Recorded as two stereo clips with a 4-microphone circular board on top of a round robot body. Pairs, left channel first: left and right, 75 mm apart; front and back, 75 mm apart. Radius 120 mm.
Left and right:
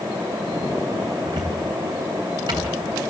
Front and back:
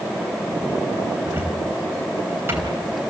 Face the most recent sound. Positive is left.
turn(degrees=-120)